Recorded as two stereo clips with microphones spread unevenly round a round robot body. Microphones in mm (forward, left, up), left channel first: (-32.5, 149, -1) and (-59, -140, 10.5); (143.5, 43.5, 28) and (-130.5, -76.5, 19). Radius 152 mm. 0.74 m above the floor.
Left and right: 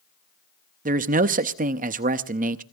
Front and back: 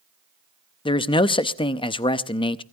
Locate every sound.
0.8 s a man speaking: 45° right, 0.7 m